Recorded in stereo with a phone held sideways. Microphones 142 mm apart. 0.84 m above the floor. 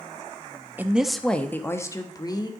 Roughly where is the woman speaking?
Centre.